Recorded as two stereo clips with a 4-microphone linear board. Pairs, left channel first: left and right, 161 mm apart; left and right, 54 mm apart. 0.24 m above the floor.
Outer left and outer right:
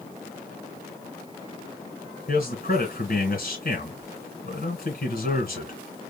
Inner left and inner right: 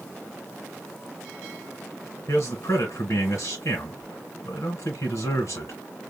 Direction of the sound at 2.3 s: 60° left (ahead or behind).